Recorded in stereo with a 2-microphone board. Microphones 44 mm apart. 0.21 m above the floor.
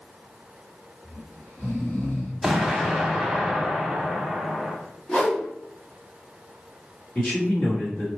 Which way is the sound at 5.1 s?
20° left (ahead or behind).